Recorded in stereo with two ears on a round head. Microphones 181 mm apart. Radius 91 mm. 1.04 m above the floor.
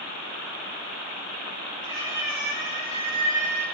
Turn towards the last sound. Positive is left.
turn(degrees=-15)  # may be behind; listen again after turning